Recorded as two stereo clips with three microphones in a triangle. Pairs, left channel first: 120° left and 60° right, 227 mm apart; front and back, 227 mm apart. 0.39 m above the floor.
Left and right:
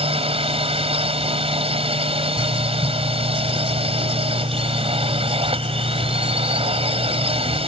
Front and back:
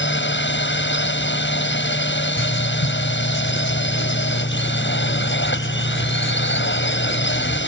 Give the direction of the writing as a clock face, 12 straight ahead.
12 o'clock.